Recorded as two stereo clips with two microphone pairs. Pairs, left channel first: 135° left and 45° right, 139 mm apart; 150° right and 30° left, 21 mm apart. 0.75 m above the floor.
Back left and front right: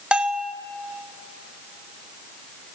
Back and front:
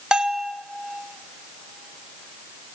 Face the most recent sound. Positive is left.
turn(degrees=40)